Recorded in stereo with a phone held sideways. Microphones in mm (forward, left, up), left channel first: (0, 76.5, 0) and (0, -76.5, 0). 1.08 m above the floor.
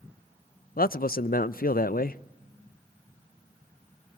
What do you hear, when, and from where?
0.8 s a man speaking: 70° left (ahead or behind), 0.5 m